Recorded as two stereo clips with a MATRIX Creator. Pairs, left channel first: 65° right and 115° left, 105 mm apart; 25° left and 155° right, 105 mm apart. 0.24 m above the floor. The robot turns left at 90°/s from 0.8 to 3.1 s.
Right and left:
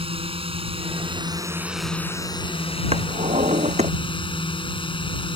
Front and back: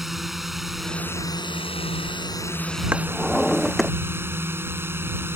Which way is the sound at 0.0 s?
115° left.